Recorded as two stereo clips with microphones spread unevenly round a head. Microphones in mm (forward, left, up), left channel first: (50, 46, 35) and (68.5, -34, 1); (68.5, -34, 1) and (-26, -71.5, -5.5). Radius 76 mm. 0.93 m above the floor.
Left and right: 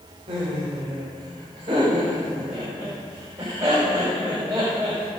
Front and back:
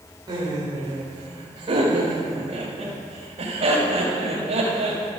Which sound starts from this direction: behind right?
Laughter, at 0.3 s.